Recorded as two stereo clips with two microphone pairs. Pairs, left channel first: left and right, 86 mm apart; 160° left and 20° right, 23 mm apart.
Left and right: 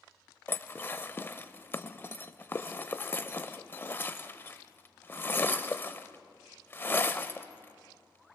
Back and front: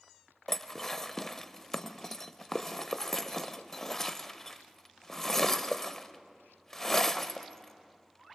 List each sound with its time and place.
0.5 s dishes clattering: 105° left, 0.6 m